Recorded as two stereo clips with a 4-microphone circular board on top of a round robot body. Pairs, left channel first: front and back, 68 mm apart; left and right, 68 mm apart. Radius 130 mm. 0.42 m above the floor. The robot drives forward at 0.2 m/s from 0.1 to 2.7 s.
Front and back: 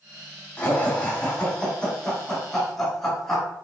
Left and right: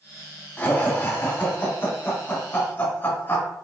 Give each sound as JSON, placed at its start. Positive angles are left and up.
{"t": 0.6, "sound": "laughter", "azimuth_deg": 50, "distance_m": 1.4}